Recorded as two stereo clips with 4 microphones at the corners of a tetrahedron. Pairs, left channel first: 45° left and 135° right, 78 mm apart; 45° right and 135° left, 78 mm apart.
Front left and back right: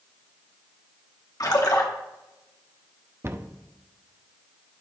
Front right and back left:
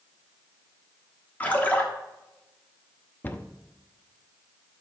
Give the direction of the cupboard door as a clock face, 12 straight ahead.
3 o'clock.